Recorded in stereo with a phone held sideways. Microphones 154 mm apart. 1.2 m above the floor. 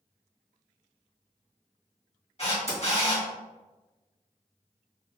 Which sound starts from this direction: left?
A camera shutter, at 2.4 s.